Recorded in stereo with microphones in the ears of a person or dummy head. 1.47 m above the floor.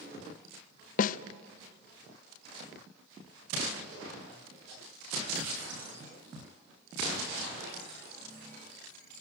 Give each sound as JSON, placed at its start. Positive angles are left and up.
{"t": 1.0, "sound": "a snare drum", "side_deg": 50, "distance_m": 0.5}